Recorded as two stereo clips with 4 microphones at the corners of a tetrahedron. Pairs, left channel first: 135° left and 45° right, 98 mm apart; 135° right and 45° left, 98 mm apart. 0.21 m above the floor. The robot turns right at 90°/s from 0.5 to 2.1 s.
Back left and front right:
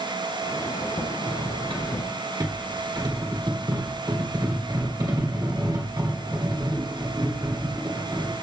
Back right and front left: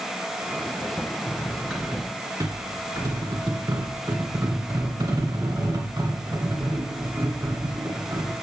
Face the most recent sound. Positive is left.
turn(degrees=-5)